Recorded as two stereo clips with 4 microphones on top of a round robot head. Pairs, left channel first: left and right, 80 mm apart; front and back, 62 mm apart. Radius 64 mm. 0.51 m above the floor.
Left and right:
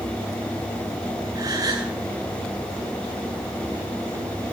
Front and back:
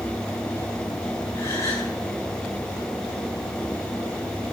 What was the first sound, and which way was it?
A gasp, 50° right.